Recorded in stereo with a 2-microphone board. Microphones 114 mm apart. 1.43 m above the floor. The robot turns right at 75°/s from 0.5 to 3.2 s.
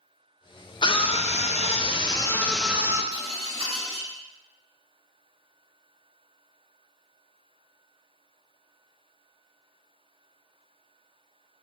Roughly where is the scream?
Ahead left.